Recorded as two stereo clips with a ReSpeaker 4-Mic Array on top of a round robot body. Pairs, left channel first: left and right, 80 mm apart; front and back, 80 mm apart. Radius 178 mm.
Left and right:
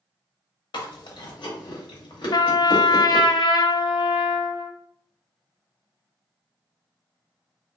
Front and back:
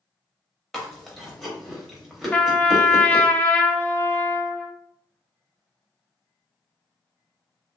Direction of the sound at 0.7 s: 85° left.